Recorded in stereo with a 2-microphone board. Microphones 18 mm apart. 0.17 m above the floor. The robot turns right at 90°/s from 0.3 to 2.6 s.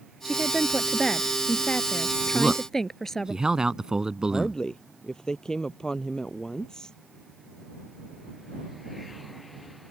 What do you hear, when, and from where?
0.2 s a woman speaking: 50° right; by 3.3 s 160° left
2.3 s a man speaking: 30° right (ahead or behind); by 4.6 s 40° right (ahead or behind)
4.3 s a woman speaking: 35° left (ahead or behind)